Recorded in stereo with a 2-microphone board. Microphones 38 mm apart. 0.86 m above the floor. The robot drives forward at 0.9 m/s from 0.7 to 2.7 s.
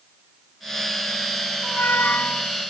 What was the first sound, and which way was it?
A squeak, 55° left (ahead or behind).